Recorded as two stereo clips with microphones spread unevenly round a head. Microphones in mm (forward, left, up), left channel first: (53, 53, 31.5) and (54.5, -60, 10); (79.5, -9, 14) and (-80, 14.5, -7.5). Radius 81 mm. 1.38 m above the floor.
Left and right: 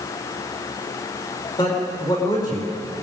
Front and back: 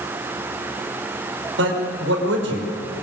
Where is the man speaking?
155° left, 5 m.